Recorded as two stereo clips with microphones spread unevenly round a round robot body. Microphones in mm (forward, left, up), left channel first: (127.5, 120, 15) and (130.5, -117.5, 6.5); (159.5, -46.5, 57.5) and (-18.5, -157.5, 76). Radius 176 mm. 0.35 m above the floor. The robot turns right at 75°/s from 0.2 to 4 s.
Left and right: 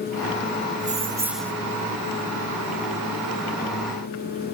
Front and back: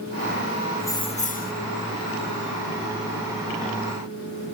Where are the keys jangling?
45° right, 0.8 m; by 1.5 s 10° left, 0.8 m.